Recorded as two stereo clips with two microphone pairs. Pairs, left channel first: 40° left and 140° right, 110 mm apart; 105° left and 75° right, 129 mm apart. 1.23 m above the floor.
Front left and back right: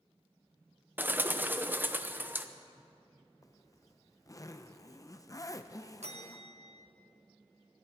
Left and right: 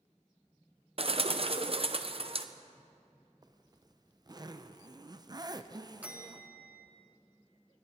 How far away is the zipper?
About 0.6 m.